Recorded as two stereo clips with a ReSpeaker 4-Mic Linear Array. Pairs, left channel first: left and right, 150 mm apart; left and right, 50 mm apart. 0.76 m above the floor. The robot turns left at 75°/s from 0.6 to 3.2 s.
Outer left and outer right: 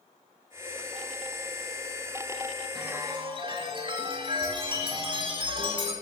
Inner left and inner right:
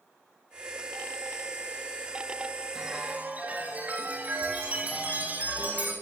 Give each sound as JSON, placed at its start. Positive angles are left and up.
{"t": 2.8, "sound": "a chime", "azimuth_deg": 0, "distance_m": 6.0}